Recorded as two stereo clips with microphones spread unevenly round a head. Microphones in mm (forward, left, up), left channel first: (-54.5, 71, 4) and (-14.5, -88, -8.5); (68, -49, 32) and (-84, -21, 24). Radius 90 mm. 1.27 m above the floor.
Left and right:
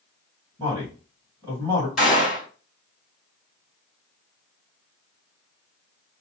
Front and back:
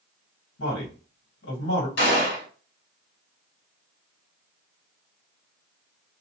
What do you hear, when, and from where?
0.6 s a man speaking: straight ahead, 1.3 m
2.0 s a gunshot: 15° left, 1.7 m